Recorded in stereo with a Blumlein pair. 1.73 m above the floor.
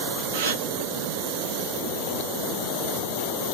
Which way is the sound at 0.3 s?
60° right.